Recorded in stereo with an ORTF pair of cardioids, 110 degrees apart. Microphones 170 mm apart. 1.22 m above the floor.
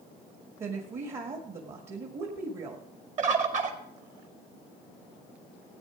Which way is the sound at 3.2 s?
45° right.